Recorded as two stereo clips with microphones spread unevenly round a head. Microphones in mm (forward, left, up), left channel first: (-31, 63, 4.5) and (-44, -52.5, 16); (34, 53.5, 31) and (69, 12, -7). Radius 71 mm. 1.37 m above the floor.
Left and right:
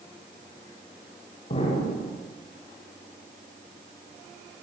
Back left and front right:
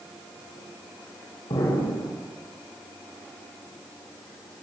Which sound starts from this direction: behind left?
An explosion, at 1.5 s.